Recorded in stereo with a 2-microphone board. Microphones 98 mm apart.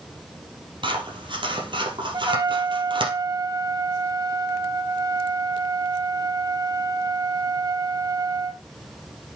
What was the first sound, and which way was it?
Scissors, 55° right (ahead or behind).